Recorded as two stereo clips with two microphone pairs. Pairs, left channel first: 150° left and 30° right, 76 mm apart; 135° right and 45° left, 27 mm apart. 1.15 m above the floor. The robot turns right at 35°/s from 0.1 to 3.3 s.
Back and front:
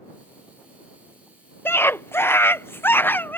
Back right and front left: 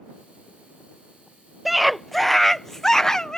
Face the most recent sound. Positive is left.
turn(degrees=-175)